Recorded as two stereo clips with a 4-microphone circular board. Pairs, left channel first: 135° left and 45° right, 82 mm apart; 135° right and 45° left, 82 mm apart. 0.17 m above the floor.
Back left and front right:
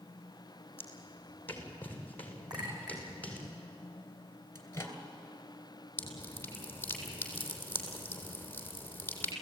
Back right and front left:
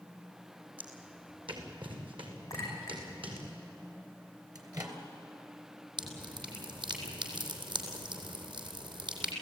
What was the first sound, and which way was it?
Footsteps, 70° left.